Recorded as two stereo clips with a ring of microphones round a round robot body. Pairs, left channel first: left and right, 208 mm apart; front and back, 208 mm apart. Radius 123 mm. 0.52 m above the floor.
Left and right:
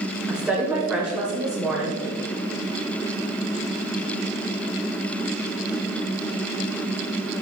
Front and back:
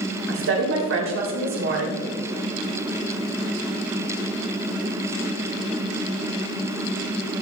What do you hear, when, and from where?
0.3 s a woman speaking: 175° right, 2.5 m